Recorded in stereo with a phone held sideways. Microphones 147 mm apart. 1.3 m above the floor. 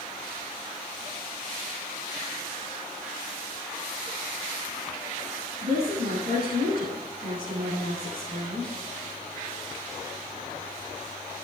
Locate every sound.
5.6 s a woman speaking: 85° right, 8 m